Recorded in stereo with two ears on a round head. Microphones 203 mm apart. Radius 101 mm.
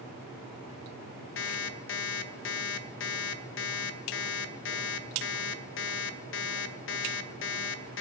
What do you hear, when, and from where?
1.4 s an alarm clock: 55° left (ahead or behind), 0.9 m